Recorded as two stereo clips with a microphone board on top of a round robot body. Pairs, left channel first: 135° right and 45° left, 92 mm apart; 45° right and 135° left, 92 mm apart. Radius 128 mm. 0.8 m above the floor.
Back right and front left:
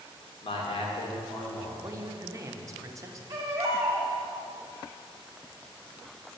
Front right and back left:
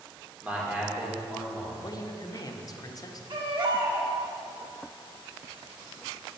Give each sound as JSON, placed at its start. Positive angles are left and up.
{"t": 0.4, "sound": "a man speaking", "azimuth_deg": -150, "distance_m": 3.0}
{"t": 1.8, "sound": "a woman speaking", "azimuth_deg": -5, "distance_m": 1.2}
{"t": 3.3, "sound": "a baby crying", "azimuth_deg": 100, "distance_m": 1.9}